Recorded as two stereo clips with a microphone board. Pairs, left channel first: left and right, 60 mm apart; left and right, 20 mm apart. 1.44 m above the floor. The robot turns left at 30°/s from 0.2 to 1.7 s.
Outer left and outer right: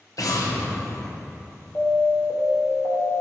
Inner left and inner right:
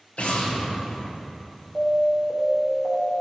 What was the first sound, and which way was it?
An explosion, 70° left (ahead or behind).